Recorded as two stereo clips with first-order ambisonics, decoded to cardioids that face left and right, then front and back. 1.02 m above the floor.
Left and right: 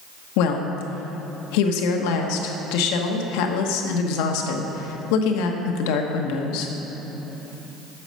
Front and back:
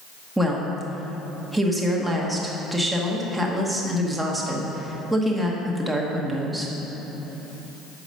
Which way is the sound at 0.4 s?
90° left.